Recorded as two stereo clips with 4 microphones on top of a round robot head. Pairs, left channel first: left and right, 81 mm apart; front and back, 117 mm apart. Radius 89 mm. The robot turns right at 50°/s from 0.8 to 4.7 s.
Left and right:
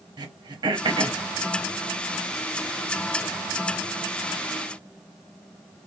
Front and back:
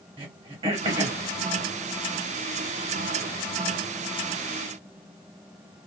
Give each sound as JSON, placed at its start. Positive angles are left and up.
{"t": 0.2, "sound": "throat clearing", "azimuth_deg": -125, "distance_m": 0.8}